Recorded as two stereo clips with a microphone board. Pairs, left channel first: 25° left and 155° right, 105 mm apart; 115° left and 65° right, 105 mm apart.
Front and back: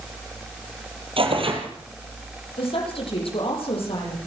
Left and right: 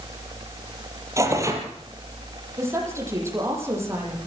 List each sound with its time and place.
1.2 s tearing paper: 130° right, 4 m
2.6 s a woman speaking: 5° right, 9.5 m